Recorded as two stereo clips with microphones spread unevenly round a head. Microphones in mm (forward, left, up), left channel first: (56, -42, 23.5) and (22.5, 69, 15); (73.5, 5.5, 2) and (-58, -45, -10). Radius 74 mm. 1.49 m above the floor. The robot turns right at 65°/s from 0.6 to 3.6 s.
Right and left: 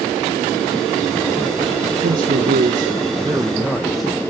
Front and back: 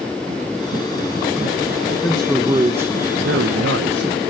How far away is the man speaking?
About 1.4 m.